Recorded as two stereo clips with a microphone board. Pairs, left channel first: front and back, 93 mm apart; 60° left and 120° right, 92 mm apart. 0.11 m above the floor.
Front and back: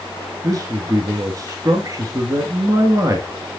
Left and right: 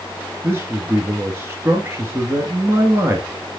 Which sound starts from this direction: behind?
A man speaking, at 0.4 s.